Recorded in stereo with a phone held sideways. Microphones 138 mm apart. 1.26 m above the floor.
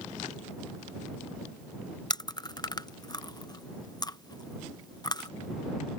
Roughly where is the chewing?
Left.